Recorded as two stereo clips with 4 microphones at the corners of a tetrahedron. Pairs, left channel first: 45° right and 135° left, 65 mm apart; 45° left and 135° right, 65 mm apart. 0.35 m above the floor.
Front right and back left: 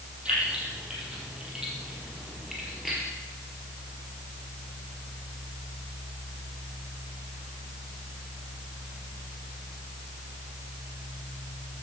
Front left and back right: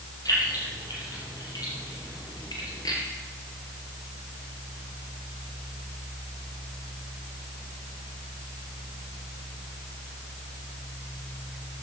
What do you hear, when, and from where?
0.2 s keys jangling: 60° left, 6.5 m; by 3.0 s 45° left, 4.5 m